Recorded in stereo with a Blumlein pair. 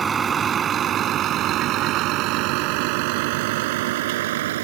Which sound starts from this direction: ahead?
A vehicle, at 0.0 s.